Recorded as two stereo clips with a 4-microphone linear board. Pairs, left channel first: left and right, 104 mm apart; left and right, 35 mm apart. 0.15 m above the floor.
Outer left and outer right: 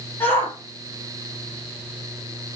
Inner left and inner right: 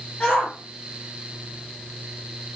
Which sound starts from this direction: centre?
A shout, at 0.2 s.